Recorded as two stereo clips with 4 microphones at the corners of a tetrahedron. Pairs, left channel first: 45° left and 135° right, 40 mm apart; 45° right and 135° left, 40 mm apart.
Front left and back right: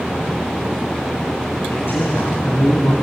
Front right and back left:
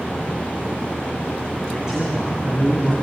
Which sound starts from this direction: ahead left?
A man speaking, at 1.7 s.